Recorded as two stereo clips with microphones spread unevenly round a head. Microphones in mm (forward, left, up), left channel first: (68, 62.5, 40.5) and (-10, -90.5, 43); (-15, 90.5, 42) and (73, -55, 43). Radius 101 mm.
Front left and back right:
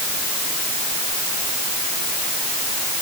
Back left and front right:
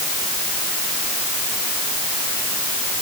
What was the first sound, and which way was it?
Only background noise.